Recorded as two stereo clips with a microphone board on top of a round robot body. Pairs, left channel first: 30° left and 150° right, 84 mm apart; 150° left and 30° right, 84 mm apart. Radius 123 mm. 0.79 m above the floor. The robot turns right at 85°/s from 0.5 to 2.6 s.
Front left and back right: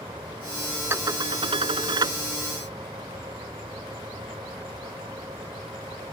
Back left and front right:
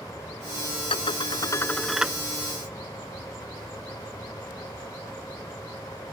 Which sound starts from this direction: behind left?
Dishes clattering, at 0.9 s.